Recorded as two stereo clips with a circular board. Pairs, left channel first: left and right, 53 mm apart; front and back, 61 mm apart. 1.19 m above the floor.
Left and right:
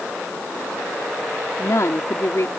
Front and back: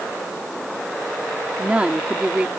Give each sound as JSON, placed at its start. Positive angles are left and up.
{"t": 1.6, "sound": "a woman speaking", "azimuth_deg": 110}